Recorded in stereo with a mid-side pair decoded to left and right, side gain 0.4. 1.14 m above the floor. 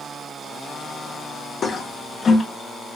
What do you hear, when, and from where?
1.6 s a toilet flushing: 50° left, 0.7 m